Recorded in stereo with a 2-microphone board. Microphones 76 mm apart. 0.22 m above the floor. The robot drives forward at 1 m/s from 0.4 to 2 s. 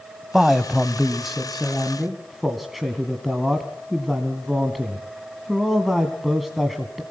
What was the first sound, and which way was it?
A man speaking, centre (ahead or behind).